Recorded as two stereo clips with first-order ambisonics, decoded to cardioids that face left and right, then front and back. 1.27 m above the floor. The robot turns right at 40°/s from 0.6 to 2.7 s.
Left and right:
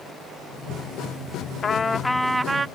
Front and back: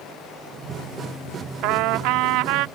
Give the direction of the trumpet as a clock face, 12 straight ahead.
7 o'clock.